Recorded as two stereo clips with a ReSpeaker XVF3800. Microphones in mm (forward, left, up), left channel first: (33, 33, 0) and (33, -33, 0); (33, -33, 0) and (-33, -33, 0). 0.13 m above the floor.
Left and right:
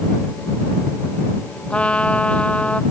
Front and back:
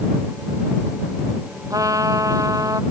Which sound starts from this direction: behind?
A trumpet, at 1.7 s.